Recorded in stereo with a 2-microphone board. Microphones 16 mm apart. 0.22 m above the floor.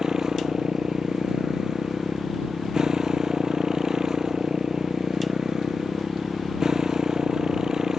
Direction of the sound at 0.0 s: 35° right (ahead or behind).